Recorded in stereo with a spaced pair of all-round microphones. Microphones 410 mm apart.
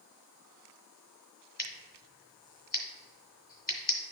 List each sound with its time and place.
1.6 s scissors: 25° left (ahead or behind), 1.8 m